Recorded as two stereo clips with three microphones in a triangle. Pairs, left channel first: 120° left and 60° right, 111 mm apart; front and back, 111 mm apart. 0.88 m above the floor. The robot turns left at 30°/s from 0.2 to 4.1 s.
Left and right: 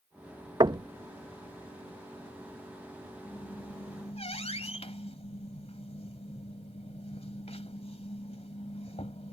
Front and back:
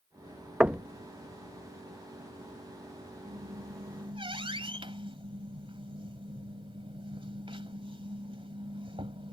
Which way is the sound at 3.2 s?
165° left.